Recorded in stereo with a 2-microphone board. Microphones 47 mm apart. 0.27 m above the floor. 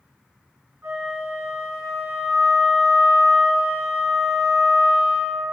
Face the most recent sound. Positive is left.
turn(degrees=-70)  # may be behind; listen again after turning